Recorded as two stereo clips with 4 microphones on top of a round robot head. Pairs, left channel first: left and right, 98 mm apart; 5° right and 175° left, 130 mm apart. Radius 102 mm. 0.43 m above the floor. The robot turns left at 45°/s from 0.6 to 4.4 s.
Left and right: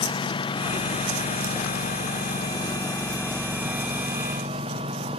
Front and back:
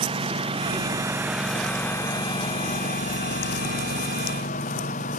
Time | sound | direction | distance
0.0 | a lawn mower | 130° left | ?